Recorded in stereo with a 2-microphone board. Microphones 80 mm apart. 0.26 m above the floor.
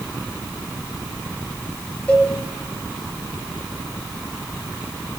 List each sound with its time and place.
2.1 s a cowbell: 15° left (ahead or behind), 5 m